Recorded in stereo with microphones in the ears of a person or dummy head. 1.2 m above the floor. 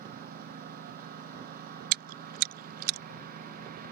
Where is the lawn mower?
50° right (ahead or behind).